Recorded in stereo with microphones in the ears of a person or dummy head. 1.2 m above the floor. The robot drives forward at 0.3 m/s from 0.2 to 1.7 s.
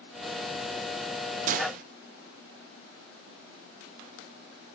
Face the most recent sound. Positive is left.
turn(degrees=-50)  # may be behind; listen again after turning